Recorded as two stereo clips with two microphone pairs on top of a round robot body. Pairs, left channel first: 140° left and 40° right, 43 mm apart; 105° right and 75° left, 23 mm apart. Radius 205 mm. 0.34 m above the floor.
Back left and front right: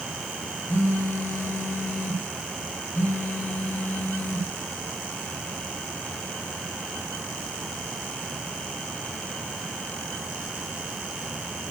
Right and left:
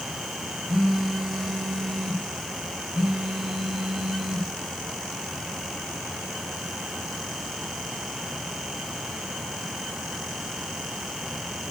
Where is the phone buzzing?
145° left, 2.5 m.